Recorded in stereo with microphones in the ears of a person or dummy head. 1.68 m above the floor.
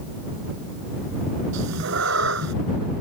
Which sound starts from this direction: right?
A cat meowing, at 1.5 s.